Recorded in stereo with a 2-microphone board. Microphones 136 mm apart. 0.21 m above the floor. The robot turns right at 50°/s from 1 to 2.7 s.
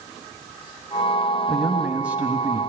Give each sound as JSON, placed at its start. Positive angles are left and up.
{"t": 1.5, "sound": "a man speaking", "side_deg": 0, "distance_m": 1.2}